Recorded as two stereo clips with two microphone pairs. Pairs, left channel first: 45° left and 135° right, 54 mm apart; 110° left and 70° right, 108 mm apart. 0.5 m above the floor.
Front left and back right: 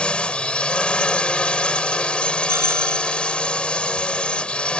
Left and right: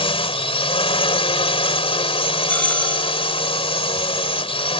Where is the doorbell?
175° right.